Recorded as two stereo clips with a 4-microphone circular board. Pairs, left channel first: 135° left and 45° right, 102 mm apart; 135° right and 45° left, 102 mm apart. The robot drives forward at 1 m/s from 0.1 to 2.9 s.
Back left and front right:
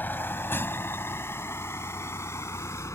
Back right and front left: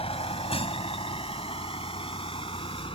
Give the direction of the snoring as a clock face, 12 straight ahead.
I don't hear snoring.